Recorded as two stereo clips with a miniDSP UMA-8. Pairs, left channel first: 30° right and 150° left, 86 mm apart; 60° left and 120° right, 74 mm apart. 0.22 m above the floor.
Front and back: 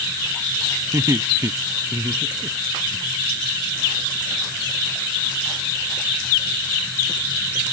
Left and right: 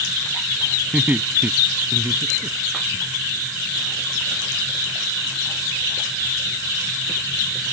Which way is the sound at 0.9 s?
175° left.